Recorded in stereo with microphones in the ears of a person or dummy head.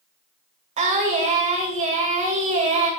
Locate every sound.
0.8 s singing: 35° right (ahead or behind), 1.8 m